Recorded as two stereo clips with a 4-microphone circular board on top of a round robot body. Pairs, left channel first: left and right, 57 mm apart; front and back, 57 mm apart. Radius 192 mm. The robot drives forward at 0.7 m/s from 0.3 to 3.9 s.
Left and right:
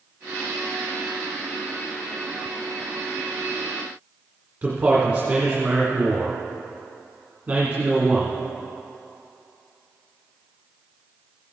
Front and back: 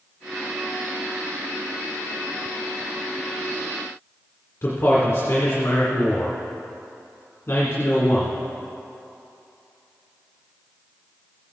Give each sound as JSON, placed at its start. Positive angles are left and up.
{"t": 4.6, "sound": "a man speaking", "azimuth_deg": -40, "distance_m": 2.0}